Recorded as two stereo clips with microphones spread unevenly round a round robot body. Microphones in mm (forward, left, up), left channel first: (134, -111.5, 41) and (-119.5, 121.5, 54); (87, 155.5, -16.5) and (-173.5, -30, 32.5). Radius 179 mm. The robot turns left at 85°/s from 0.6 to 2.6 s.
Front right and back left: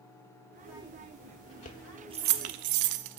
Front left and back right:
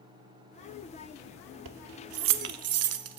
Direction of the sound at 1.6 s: 105° right.